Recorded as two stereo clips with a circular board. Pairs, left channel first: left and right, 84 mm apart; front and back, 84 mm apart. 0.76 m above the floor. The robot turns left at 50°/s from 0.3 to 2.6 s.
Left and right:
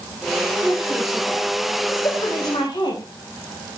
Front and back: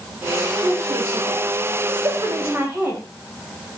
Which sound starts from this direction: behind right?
A woman speaking, at 0.6 s.